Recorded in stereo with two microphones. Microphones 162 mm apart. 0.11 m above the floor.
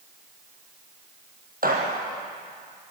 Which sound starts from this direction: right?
A gunshot, at 1.6 s.